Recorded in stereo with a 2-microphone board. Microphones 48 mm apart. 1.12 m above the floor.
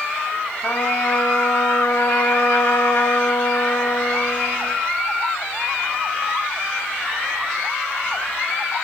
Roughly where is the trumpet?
Left.